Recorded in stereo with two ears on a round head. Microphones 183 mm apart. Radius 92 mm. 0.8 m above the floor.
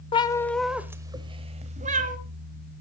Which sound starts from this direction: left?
A cat meowing, at 0.1 s.